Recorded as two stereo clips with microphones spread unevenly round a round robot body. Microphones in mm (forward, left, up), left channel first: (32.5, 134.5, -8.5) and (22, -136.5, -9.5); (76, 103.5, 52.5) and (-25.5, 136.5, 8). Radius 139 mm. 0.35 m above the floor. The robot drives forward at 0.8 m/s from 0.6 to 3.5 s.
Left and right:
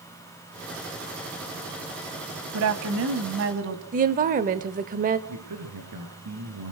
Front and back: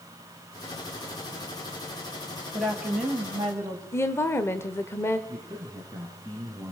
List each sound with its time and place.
2.5 s a woman speaking: 120° right, 1.9 m; by 3.8 s 140° right, 2.5 m
3.9 s a woman speaking: 110° right, 1.0 m
5.3 s a man speaking: 120° right, 5 m